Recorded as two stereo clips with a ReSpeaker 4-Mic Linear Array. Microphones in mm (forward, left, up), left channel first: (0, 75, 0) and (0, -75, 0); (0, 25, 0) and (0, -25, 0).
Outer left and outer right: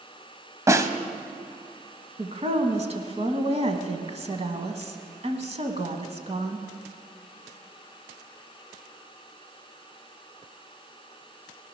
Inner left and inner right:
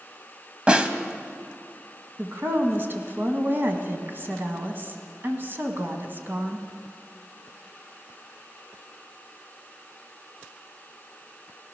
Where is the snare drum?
20° right (ahead or behind), 0.8 m.